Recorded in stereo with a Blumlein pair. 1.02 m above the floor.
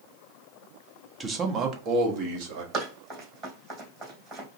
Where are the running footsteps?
30° right, 3 m.